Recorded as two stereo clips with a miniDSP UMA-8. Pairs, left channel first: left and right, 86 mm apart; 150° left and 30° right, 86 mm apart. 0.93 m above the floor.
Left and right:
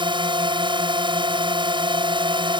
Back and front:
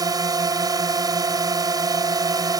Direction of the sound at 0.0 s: 70° right.